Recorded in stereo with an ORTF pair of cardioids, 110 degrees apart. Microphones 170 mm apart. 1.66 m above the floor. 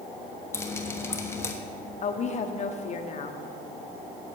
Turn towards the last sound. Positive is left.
turn(degrees=40)